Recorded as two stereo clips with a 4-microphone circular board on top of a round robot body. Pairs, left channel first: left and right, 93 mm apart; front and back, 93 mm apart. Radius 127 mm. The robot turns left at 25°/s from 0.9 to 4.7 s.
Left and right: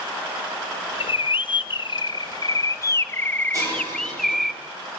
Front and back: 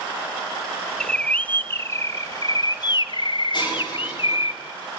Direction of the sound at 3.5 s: 35° right.